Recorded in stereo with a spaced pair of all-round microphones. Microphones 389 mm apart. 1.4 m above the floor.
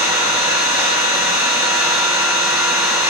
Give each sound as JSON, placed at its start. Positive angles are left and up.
{"t": 0.0, "sound": "an engine running", "side_deg": -10, "distance_m": 1.3}